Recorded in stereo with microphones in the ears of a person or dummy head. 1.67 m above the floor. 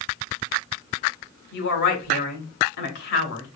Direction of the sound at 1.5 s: 60° left (ahead or behind).